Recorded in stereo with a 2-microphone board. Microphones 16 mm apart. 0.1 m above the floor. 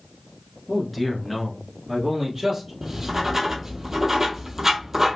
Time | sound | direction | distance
0.7 | a man speaking | 15° left (ahead or behind) | 1.1 m
2.8 | writing | 25° right (ahead or behind) | 0.7 m